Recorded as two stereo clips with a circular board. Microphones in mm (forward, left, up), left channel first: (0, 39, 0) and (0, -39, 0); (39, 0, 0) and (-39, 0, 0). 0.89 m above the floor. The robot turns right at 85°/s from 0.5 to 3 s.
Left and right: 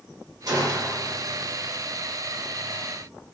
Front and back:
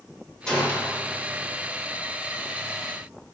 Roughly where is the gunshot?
Right.